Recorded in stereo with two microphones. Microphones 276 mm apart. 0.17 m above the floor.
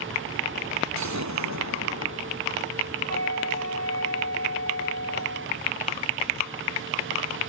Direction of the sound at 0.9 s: 90° right.